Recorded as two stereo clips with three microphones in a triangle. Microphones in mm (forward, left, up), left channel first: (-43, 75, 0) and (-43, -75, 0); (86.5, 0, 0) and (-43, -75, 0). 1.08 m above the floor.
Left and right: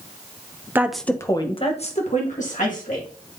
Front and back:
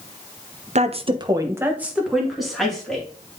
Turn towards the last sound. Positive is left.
turn(degrees=115)